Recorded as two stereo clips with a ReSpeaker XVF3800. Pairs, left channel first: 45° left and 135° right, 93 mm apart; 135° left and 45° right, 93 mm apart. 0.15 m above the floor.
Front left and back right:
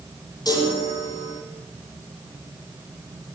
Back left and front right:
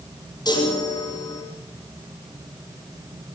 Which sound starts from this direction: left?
A chime, at 0.5 s.